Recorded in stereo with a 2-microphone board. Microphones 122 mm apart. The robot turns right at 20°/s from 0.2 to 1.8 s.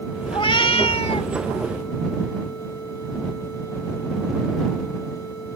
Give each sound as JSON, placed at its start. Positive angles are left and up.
{"t": 0.3, "sound": "a cat meowing", "side_deg": 40}